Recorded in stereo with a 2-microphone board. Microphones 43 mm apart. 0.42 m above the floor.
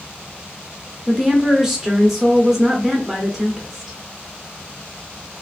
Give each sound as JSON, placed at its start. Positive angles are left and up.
{"t": 1.1, "sound": "a woman speaking", "side_deg": -5, "distance_m": 0.8}